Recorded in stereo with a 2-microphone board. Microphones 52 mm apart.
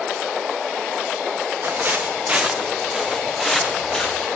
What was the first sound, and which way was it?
Footsteps, 45° right (ahead or behind).